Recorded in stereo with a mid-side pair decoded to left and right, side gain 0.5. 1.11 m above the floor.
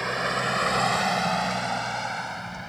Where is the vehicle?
5° right; by 2.7 s 5° left.